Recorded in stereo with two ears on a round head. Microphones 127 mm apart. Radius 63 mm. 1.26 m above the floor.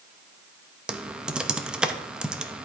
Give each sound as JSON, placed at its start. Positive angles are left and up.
{"t": 0.9, "sound": "typing on a keyboard", "side_deg": -5, "distance_m": 0.6}